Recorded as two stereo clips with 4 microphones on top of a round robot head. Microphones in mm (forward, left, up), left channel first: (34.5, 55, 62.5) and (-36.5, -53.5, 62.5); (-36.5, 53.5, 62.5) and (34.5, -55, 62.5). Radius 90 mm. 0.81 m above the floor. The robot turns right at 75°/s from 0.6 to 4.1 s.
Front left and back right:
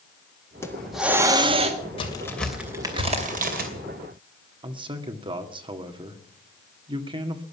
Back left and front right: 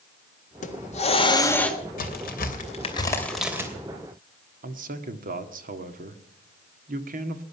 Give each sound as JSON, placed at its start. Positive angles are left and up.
{"t": 0.6, "sound": "a hiss", "azimuth_deg": 125, "distance_m": 1.7}
{"t": 2.0, "sound": "a crack", "azimuth_deg": 110, "distance_m": 2.5}
{"t": 4.6, "sound": "a man speaking", "azimuth_deg": -70, "distance_m": 1.5}